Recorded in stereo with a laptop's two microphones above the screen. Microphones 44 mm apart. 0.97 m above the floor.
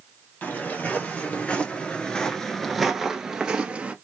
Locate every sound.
0.4 s footsteps: 40° left (ahead or behind), 1.5 m; by 3.9 s 25° right (ahead or behind), 1.2 m